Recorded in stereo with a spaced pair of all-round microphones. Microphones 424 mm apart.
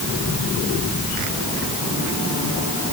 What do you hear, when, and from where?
Only background noise.